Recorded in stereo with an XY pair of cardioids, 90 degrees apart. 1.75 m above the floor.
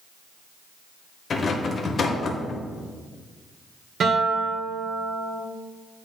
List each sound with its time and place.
1.3 s a rattle: 50° left, 1.0 m
4.0 s a guitar: 60° right, 1.6 m